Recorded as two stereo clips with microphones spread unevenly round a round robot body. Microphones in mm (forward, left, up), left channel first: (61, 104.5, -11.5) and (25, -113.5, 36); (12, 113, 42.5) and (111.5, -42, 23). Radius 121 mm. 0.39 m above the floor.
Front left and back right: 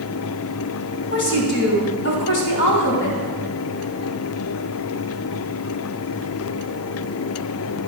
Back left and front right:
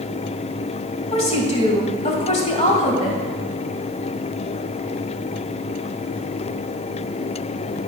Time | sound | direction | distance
1.1 | a woman speaking | 70° left | 2.5 m